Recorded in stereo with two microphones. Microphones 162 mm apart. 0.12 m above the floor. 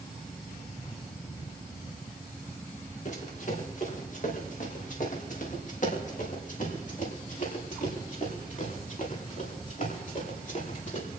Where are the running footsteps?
50° left (ahead or behind), 5 m; by 11.1 s 55° left (ahead or behind), 10.5 m.